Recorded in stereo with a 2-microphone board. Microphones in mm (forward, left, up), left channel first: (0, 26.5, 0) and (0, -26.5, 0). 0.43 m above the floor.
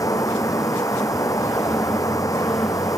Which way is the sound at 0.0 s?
85° left.